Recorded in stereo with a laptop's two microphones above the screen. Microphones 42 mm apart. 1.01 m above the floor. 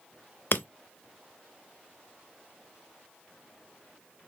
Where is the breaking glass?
60° left (ahead or behind), 0.7 m.